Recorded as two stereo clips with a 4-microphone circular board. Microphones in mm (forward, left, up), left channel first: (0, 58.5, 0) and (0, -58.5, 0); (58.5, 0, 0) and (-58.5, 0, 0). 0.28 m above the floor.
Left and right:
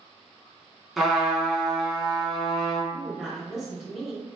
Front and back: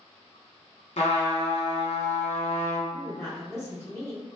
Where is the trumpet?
5° right, 0.8 m.